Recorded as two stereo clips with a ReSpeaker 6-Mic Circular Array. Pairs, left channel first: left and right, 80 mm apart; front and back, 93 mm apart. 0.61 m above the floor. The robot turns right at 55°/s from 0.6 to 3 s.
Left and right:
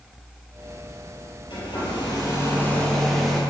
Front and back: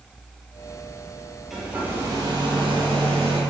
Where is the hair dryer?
95° left, 5 m; by 3.4 s 175° left, 5 m.